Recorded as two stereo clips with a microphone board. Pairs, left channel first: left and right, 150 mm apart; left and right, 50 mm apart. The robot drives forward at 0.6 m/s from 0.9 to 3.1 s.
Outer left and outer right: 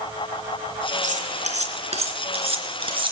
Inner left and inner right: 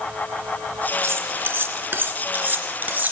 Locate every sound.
1.0 s cutlery clinking: 55° right (ahead or behind), 1.9 m; by 3.1 s 35° right (ahead or behind), 3 m